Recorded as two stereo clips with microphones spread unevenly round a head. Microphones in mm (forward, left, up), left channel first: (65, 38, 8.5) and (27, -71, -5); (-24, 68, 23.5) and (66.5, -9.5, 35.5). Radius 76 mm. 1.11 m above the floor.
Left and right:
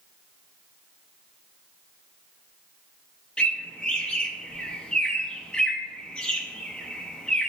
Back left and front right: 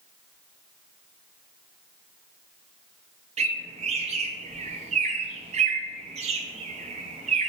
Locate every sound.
3.4 s a bird: 10° right, 0.7 m